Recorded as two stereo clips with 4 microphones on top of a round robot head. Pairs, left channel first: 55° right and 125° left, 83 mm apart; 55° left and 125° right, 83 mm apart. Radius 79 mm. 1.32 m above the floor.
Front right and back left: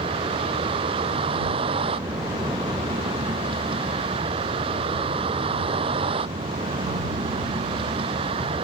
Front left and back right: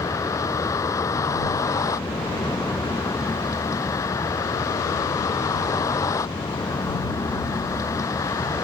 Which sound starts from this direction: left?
A vehicle, at 0.0 s.